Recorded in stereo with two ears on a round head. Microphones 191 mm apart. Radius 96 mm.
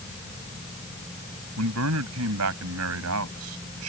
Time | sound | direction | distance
1.6 | a man speaking | 80° right | ?